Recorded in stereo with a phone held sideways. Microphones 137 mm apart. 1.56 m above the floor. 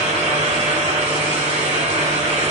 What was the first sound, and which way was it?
A fan, 55° right (ahead or behind).